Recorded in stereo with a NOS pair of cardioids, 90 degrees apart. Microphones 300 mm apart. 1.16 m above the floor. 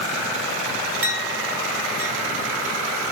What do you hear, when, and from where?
1.0 s a clink: 45° right, 2.5 m